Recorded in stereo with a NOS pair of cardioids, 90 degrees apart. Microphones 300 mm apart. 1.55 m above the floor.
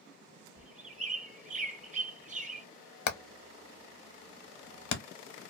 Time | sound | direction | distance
0.6 | a bird | 25° right | 0.6 m
3.1 | hammering | 70° left | 0.8 m